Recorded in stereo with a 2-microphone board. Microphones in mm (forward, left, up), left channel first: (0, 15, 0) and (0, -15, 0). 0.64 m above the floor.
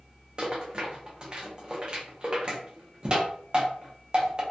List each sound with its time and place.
0.4 s a rattle: 35° right (ahead or behind), 0.6 m